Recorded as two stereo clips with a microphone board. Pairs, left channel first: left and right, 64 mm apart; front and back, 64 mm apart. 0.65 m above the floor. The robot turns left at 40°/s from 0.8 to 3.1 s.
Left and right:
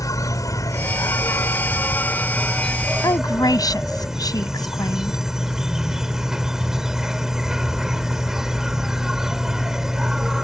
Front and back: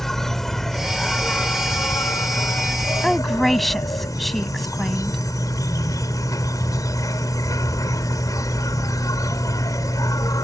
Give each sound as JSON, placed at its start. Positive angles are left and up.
{"t": 0.0, "sound": "an insect", "azimuth_deg": 85}
{"t": 3.0, "sound": "a woman speaking", "azimuth_deg": 90}